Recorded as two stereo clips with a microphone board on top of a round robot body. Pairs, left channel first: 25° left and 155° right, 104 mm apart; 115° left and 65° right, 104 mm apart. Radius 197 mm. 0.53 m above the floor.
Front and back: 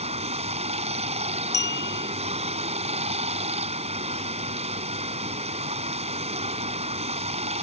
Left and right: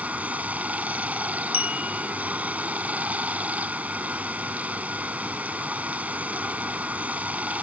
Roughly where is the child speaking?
I don't hear a child speaking.